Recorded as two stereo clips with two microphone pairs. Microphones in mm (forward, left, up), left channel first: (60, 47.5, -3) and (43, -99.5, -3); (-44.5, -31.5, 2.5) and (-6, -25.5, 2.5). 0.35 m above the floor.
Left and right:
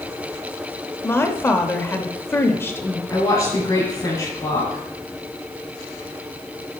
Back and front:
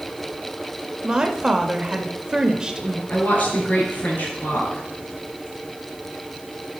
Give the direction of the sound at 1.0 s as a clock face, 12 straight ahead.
11 o'clock.